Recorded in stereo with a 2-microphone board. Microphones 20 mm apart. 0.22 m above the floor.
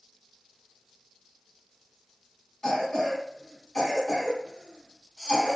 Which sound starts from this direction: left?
A cough, at 2.6 s.